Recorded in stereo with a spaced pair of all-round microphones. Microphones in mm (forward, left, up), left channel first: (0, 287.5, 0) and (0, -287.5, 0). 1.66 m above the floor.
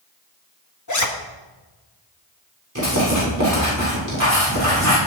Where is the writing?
30° right (ahead or behind), 6 m.